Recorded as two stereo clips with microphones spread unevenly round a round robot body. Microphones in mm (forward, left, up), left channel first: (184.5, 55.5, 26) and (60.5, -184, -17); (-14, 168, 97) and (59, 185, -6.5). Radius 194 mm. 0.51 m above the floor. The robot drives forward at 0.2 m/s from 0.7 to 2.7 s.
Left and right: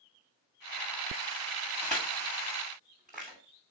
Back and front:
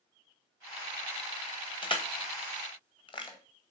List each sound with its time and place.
1.8 s crushing: 150° left, 1.7 m; by 3.4 s 155° left, 1.9 m